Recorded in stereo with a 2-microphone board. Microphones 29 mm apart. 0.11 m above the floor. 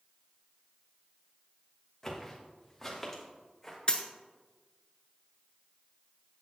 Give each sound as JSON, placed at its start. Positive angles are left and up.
{"t": 2.0, "sound": "footsteps", "side_deg": 15, "distance_m": 2.0}
{"t": 3.9, "sound": "a dropped coin", "side_deg": 35, "distance_m": 0.7}